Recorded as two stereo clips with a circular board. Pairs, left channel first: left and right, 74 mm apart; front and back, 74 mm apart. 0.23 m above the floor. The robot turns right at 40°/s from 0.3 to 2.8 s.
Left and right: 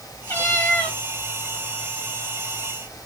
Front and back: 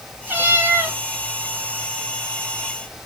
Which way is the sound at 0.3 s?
130° left.